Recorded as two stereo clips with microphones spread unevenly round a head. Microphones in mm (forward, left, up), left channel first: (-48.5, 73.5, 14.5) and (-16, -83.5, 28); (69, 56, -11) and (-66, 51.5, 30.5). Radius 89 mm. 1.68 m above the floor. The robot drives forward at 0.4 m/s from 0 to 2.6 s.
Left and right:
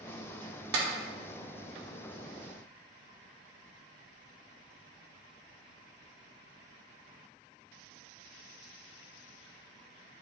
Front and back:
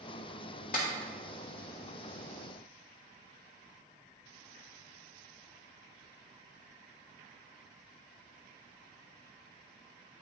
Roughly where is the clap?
Ahead right.